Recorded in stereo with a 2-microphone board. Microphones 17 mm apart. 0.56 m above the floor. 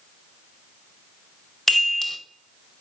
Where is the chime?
20° left (ahead or behind), 0.7 m.